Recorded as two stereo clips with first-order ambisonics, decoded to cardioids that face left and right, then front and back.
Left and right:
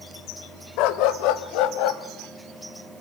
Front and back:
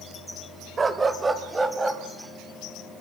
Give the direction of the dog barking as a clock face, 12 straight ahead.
8 o'clock.